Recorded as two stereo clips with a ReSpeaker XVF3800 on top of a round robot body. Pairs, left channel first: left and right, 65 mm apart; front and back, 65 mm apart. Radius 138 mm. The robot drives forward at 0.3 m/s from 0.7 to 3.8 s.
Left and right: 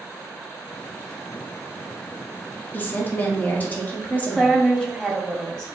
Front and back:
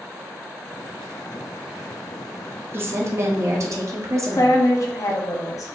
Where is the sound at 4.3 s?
10° left, 1.5 m.